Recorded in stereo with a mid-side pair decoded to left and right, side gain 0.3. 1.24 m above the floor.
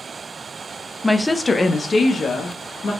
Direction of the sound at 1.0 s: 5° left.